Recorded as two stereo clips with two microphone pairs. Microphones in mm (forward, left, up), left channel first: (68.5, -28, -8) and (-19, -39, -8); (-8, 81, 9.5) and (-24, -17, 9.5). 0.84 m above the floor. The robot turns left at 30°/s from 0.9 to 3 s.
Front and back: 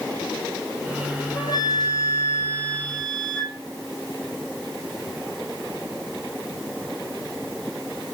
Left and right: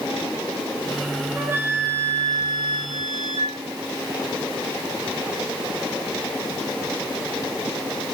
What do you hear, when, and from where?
1.3 s a flute: 30° right, 6 m; by 3.6 s 80° right, 6 m